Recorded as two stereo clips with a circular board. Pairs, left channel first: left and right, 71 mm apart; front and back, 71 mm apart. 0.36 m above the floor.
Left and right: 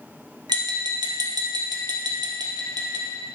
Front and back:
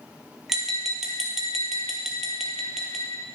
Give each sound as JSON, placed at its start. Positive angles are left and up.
{"t": 0.5, "sound": "tapping", "azimuth_deg": -95, "distance_m": 1.8}